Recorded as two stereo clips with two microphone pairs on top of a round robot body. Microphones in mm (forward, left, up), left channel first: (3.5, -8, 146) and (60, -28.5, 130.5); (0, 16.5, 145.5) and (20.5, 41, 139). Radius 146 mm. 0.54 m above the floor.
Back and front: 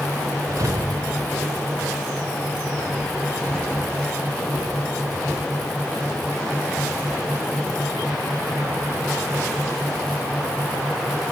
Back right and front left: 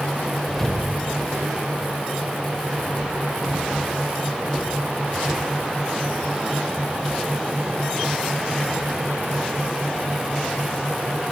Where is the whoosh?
45° right, 1.3 m.